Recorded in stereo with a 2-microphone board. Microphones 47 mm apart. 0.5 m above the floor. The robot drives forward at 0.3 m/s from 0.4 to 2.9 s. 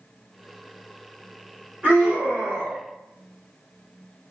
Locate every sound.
1.8 s a scream: 25° right (ahead or behind), 1.3 m